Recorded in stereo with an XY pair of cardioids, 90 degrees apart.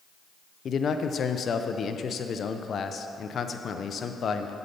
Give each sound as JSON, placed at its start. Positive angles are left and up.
{"t": 0.7, "sound": "a man speaking", "azimuth_deg": 55, "distance_m": 0.7}